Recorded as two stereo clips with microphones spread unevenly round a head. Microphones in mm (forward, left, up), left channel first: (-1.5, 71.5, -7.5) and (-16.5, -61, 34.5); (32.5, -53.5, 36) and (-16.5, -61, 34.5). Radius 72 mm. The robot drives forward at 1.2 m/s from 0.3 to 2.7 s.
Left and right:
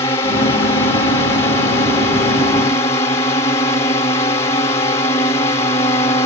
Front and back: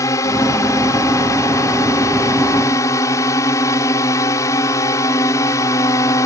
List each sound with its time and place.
0.0 s a drone: 20° left; by 6.3 s 25° left